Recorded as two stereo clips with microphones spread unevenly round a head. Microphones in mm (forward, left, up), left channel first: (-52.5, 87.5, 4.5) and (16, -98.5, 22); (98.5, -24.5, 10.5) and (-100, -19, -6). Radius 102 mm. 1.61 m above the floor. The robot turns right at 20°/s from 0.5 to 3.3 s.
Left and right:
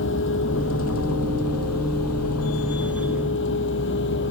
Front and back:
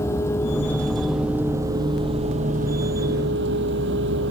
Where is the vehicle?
75° left; by 4.3 s 140° left.